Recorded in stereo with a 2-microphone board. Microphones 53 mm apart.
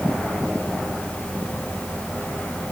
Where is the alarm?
I don't hear an alarm.